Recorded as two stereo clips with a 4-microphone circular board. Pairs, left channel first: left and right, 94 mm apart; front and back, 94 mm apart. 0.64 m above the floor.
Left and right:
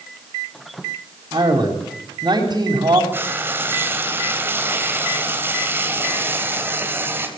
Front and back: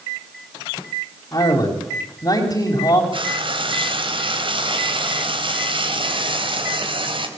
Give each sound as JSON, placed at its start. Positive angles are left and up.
{"t": 1.3, "sound": "a man speaking", "azimuth_deg": -45, "distance_m": 4.5}
{"t": 3.1, "sound": "frying", "azimuth_deg": -155, "distance_m": 3.5}